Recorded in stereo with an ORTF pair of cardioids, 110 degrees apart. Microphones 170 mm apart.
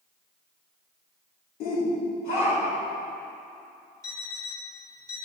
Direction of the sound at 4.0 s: 15° left.